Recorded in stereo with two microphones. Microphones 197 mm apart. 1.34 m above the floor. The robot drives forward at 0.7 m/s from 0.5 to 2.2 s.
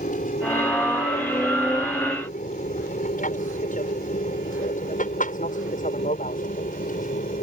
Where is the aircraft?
40° left (ahead or behind).